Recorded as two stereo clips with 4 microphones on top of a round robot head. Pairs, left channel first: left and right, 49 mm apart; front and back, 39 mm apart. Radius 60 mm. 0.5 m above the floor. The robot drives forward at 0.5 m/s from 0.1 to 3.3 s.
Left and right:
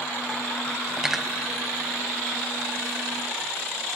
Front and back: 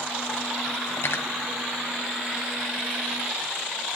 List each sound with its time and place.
1.0 s cutlery clinking: 10° right, 2.0 m; by 1.3 s 15° right, 1.8 m